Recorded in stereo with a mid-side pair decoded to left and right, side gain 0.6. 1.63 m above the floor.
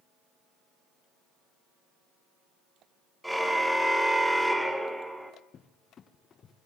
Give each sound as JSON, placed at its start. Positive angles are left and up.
{"t": 3.2, "sound": "a car horn", "azimuth_deg": -5, "distance_m": 3.5}
{"t": 5.5, "sound": "a cupboard door", "azimuth_deg": 40, "distance_m": 1.6}